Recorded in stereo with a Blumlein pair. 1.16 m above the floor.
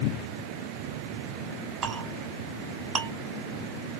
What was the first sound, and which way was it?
A clink, 25° right.